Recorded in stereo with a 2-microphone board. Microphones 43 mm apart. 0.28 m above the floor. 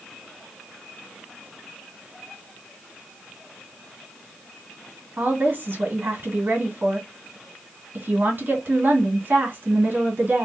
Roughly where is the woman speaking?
Right.